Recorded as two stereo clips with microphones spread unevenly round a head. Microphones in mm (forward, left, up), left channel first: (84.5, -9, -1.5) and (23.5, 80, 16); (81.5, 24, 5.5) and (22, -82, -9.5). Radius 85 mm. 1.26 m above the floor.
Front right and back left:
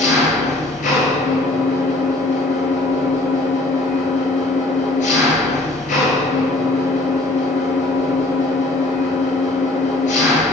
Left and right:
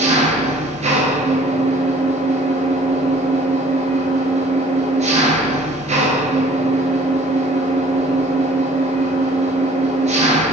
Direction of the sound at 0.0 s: 95° right.